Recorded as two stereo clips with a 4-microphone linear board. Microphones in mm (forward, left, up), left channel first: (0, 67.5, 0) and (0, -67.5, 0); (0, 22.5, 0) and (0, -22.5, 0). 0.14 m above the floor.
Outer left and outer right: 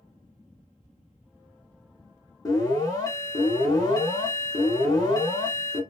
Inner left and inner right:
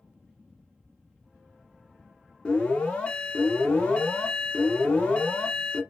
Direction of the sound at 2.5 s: 30° left (ahead or behind).